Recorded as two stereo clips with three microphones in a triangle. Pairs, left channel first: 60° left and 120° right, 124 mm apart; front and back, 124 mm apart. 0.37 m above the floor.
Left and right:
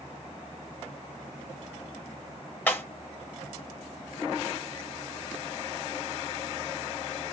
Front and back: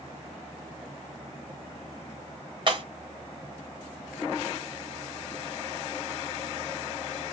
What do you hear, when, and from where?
2.7 s breaking glass: 135° left, 1.5 m